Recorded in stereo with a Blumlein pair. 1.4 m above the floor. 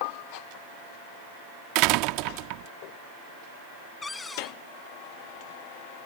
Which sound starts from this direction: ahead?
A cupboard door, at 4.0 s.